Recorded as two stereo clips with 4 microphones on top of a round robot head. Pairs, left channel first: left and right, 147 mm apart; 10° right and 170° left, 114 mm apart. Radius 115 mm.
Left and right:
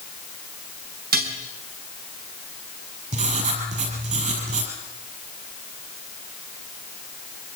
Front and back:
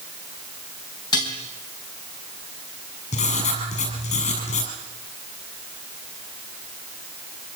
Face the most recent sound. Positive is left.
turn(degrees=-40)